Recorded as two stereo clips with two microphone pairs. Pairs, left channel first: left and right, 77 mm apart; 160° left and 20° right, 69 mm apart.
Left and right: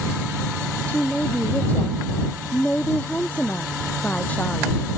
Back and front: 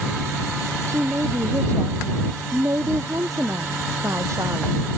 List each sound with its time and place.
0.9 s a woman speaking: 20° left